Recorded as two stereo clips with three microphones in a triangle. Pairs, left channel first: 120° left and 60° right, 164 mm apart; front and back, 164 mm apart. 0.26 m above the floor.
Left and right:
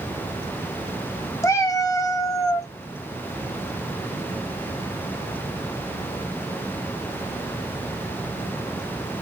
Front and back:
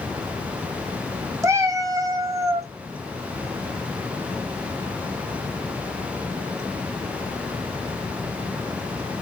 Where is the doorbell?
I don't hear a doorbell.